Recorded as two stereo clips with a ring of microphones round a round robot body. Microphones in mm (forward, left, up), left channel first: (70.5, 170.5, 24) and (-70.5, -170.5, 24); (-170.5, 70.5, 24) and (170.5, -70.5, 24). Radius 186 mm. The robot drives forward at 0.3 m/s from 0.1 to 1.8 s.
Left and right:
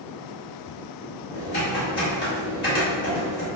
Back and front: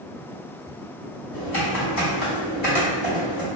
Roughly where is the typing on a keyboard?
Behind left.